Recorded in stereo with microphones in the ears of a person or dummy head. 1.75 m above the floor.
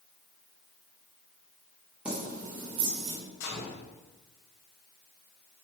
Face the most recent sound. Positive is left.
turn(degrees=85)